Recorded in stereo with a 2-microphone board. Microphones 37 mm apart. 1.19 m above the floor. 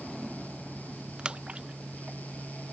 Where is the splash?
30° right (ahead or behind).